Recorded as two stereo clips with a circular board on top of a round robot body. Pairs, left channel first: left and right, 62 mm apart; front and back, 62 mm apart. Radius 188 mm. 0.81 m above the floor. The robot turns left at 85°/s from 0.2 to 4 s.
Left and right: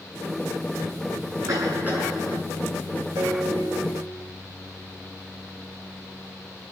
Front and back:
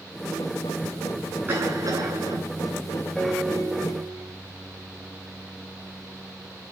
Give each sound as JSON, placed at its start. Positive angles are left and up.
{"t": 1.5, "sound": "a cough", "azimuth_deg": -120, "distance_m": 9.5}
{"t": 3.2, "sound": "a piano", "azimuth_deg": -80, "distance_m": 1.7}